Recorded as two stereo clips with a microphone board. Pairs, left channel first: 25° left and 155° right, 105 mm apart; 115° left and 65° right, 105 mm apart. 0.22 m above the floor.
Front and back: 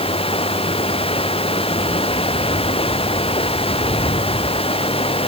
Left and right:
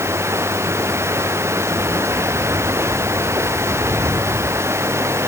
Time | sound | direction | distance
0.0 | running water | straight ahead | ?